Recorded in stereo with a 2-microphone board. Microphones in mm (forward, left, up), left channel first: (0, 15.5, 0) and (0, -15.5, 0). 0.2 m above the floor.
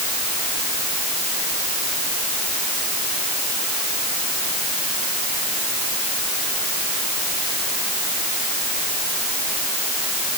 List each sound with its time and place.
Only background noise.